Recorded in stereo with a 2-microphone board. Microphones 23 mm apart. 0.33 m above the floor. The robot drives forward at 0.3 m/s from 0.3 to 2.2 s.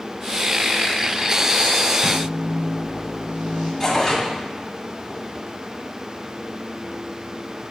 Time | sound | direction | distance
2.0 | a microwave | 75° right (ahead or behind) | 4.5 m
3.8 | tearing paper | 5° left (ahead or behind) | 2 m